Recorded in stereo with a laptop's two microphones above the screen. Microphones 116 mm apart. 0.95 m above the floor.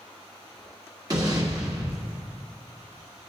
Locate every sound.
1.1 s an explosion: 35° right (ahead or behind), 1.5 m